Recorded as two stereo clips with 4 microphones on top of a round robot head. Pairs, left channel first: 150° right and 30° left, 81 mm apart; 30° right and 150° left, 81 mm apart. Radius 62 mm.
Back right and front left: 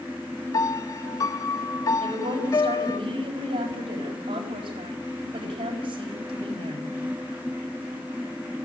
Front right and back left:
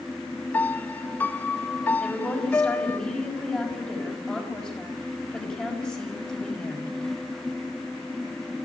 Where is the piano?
100° right, 0.9 m.